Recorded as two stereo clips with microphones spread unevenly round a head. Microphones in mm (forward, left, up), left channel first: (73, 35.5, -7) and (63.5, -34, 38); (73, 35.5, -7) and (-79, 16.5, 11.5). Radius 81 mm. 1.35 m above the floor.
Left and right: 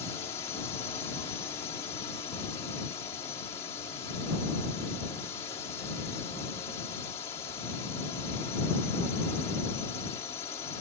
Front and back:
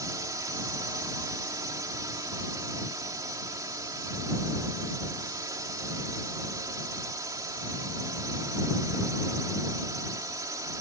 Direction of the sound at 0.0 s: 120° left.